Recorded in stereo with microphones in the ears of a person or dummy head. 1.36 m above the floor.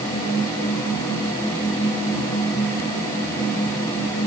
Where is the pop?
I don't hear a pop.